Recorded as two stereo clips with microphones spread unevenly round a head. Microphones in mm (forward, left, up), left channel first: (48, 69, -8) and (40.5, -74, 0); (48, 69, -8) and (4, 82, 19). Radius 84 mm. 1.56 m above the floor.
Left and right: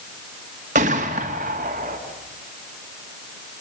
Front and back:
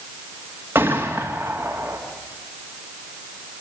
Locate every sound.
0.8 s a gunshot: 135° right, 2 m